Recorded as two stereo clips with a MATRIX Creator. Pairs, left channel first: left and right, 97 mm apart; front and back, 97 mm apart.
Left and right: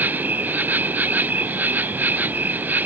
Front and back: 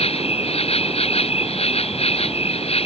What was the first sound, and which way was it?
An insect, 15° right.